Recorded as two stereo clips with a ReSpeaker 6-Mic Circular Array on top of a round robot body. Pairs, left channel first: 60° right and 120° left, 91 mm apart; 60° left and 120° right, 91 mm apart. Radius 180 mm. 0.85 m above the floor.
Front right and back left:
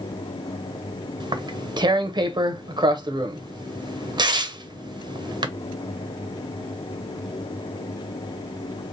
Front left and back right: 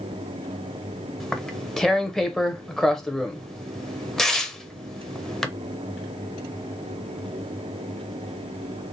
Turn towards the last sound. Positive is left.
turn(degrees=145)